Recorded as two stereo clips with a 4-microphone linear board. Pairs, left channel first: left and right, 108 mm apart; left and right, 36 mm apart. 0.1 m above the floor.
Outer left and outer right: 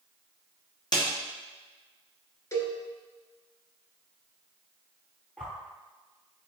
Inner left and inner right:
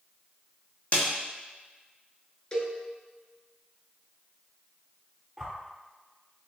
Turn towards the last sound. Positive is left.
turn(degrees=10)  # may be behind; listen again after turning